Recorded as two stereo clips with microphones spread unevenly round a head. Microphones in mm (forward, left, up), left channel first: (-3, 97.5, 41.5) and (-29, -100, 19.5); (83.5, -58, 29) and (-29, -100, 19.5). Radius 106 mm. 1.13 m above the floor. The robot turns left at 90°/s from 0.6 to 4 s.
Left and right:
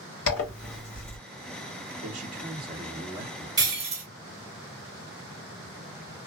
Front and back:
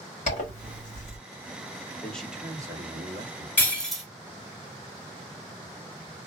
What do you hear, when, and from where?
0.3 s a zipper: 65° left, 1.4 m; by 1.2 s 15° left, 1.4 m
2.0 s a man speaking: 55° right, 1.0 m; by 3.5 s 175° left, 1.0 m
3.6 s breaking glass: 25° right, 0.9 m; by 4.0 s 65° right, 0.9 m